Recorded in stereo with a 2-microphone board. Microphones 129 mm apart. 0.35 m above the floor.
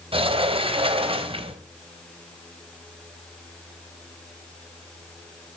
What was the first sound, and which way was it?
A sliding door, 50° right (ahead or behind).